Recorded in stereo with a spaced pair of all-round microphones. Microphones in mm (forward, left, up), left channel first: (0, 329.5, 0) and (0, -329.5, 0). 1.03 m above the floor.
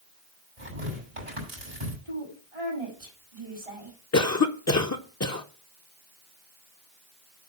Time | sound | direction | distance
0.6 | tearing paper | 60° right (ahead or behind) | 5.5 m
2.0 | a woman speaking | 55° right (ahead or behind) | 5.5 m
4.1 | a cough | 25° left (ahead or behind) | 0.5 m